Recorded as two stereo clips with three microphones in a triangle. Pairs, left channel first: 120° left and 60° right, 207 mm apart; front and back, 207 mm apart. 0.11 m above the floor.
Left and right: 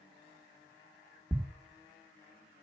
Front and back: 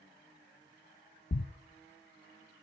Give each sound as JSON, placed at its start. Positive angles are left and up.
{"t": 1.3, "sound": "a thud", "azimuth_deg": 25, "distance_m": 0.6}